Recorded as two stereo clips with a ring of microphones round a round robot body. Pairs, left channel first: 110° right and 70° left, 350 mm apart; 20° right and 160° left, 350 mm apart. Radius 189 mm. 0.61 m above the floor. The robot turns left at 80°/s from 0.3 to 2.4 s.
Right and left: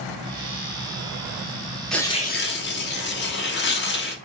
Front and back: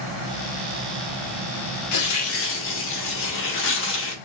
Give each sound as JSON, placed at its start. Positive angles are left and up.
{"t": 1.9, "sound": "tearing paper", "azimuth_deg": -25, "distance_m": 1.1}